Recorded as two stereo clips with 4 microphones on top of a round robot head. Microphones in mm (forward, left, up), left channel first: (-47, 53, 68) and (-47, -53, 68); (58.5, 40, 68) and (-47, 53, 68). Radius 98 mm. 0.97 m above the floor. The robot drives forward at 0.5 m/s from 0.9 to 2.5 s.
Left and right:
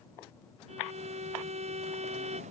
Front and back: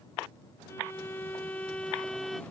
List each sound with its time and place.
0.7 s a violin: 75° right; by 2.4 s 95° right